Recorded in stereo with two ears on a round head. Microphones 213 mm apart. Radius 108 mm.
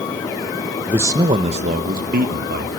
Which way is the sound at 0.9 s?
5° right (ahead or behind).